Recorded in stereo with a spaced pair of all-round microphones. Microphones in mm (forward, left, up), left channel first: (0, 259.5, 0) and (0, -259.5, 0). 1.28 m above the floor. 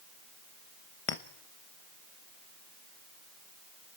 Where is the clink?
75° left (ahead or behind), 1.0 m.